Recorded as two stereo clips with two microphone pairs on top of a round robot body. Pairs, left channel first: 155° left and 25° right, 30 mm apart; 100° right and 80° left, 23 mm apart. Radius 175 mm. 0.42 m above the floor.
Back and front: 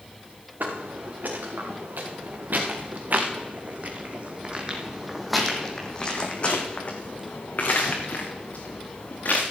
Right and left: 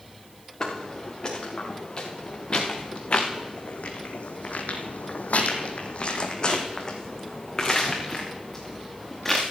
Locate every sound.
0.6 s footsteps: 40° right, 3.5 m; by 9.4 s 175° left, 3.5 m